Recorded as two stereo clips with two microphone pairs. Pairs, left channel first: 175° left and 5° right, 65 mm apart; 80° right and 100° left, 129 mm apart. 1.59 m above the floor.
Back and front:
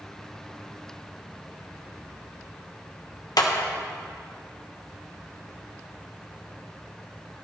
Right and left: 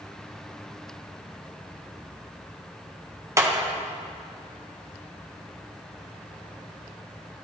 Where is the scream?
I don't hear a scream.